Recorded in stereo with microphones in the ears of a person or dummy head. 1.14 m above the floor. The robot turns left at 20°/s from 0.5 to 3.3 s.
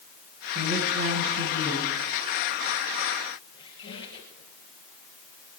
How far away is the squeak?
About 4 m.